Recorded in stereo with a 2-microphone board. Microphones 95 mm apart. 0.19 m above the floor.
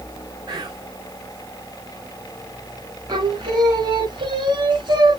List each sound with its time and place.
0.5 s whispering: 45° right (ahead or behind), 2.5 m
3.1 s singing: 55° right (ahead or behind), 1.4 m